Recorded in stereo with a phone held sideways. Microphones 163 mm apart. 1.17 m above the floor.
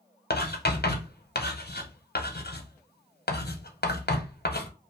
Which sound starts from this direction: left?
Writing, at 0.3 s.